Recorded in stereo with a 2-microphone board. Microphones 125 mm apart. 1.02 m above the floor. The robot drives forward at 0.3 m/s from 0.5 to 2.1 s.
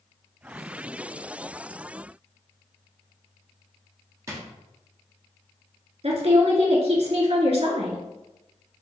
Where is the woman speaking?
60° right (ahead or behind), 1.4 m.